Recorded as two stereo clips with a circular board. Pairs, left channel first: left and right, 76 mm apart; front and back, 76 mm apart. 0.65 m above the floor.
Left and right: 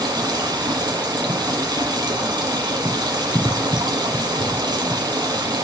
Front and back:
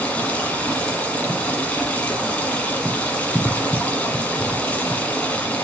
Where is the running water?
70° right, 1.2 m.